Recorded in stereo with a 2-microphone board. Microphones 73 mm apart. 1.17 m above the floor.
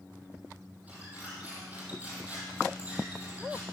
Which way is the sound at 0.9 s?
20° right (ahead or behind).